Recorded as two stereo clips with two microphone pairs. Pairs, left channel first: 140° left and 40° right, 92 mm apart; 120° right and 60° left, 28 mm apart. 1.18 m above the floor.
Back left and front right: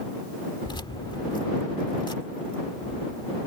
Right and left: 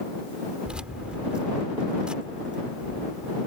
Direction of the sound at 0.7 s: 110° left.